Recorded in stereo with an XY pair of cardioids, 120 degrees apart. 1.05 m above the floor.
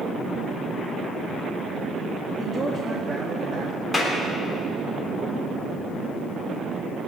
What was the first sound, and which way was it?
A man speaking, 25° right.